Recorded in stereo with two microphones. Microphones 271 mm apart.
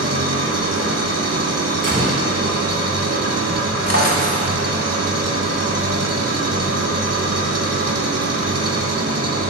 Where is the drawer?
65° left (ahead or behind), 1.2 m.